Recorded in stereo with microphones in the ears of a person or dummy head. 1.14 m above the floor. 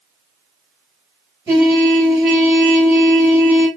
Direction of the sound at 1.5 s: 10° right (ahead or behind).